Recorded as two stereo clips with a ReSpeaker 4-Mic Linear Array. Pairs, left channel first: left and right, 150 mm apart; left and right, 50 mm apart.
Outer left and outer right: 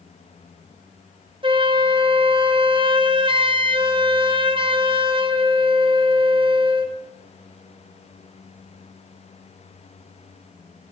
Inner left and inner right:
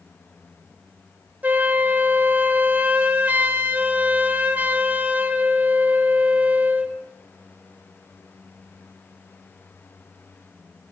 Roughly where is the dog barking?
No dog barking in this recording.